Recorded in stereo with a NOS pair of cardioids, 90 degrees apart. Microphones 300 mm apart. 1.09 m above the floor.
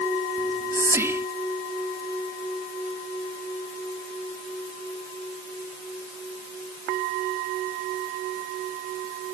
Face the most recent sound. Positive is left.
turn(degrees=-10)